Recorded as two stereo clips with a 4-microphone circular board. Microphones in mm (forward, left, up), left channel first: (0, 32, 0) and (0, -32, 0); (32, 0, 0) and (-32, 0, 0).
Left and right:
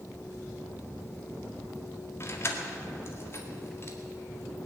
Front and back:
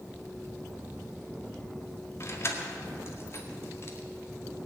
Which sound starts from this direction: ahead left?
Keys jangling, at 2.2 s.